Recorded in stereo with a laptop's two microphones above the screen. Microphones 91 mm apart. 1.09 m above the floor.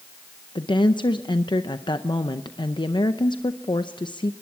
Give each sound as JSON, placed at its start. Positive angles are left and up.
{"t": 0.6, "sound": "a woman speaking", "side_deg": 60, "distance_m": 0.5}